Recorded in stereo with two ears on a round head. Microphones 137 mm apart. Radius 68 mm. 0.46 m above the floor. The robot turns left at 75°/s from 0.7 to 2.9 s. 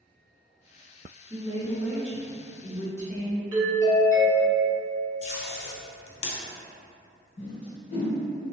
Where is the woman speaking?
25° right (ahead or behind), 0.8 m; by 3.4 s 20° left (ahead or behind), 0.8 m.